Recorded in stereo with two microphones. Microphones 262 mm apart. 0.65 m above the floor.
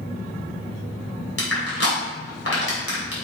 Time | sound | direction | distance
1.4 | crushing | 65° left (ahead or behind) | 3 m